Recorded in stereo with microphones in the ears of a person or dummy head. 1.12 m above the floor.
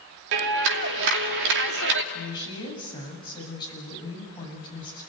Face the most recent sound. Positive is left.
turn(degrees=25)  # may be behind; listen again after turning